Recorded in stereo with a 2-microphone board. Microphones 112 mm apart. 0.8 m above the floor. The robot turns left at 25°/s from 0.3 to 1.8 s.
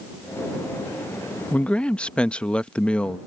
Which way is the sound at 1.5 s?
15° left (ahead or behind).